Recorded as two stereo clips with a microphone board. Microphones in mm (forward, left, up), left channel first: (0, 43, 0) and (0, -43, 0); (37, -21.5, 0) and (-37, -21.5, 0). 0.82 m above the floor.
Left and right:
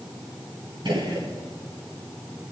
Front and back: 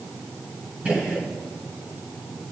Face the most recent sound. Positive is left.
turn(degrees=-105)